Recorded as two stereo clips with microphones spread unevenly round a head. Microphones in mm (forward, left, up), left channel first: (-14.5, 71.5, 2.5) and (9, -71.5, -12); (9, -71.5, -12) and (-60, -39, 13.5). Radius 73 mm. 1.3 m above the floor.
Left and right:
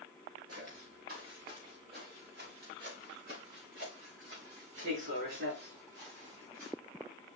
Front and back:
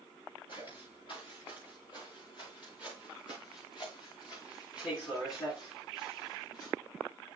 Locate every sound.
0.5 s footsteps: 45° right, 8 m; by 6.7 s 70° right, 7.5 m